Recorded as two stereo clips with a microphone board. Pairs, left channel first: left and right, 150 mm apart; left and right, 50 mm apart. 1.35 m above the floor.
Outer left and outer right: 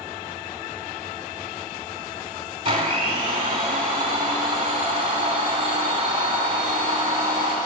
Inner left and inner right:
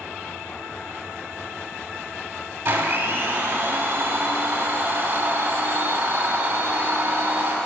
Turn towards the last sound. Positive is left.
turn(degrees=-35)  # may be behind; listen again after turning